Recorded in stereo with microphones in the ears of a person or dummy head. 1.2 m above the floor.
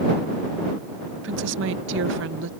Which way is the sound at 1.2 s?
60° right (ahead or behind).